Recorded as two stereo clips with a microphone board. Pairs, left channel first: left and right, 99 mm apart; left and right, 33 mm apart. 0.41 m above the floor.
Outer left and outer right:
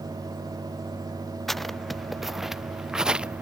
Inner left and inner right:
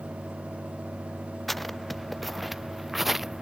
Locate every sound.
1.5 s footsteps: 5° left (ahead or behind); by 3.4 s 10° right (ahead or behind)